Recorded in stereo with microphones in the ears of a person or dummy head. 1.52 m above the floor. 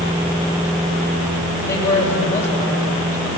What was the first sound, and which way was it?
A man speaking, 10° left (ahead or behind).